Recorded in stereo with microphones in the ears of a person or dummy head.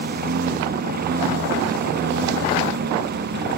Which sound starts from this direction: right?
A lawn mower, at 0.0 s.